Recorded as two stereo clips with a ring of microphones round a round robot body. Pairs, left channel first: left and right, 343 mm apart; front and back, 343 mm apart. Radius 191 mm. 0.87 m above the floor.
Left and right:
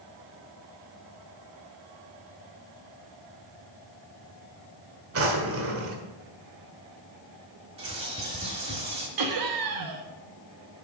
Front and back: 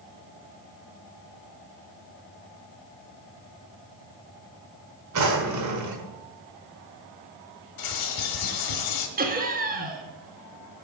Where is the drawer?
140° right, 1.7 m.